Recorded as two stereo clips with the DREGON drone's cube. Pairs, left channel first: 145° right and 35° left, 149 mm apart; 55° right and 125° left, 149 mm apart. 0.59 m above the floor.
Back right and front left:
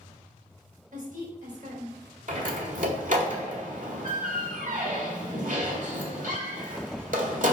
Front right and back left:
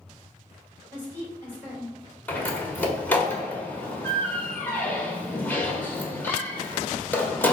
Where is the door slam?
20° left, 1.6 m.